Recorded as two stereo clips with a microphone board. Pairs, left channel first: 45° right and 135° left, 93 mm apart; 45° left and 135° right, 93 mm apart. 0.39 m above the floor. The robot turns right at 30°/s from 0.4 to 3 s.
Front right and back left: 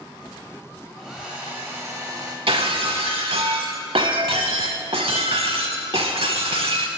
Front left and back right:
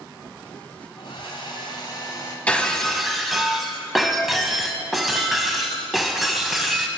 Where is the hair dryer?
45° left, 1.9 m; by 2.4 s 85° left, 1.9 m.